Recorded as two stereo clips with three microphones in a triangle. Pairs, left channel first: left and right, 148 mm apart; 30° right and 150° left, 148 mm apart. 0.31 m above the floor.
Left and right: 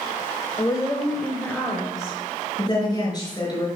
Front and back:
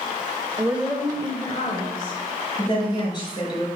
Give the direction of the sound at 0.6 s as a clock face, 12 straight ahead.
9 o'clock.